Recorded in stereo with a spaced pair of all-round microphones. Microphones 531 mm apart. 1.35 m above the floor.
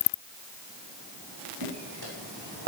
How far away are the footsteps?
About 4.5 m.